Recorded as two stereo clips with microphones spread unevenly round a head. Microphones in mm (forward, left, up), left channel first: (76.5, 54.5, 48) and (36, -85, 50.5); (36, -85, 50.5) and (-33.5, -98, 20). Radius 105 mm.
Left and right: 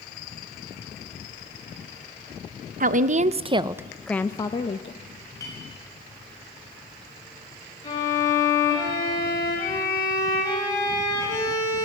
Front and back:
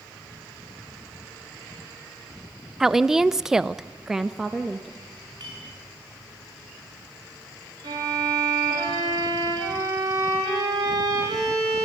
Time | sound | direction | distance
2.8 | a woman speaking | 100° right | 0.9 m
5.4 | a clink | 150° left | 3.5 m
7.8 | a violin | 145° left | 5 m